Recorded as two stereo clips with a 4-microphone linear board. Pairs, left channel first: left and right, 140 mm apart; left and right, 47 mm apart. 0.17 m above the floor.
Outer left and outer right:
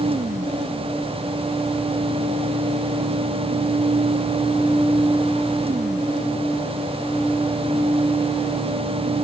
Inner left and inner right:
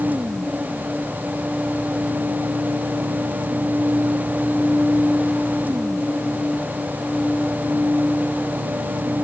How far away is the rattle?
No rattle in this recording.